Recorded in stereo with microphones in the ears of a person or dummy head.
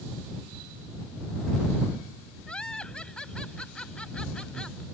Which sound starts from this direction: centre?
Laughter, at 2.5 s.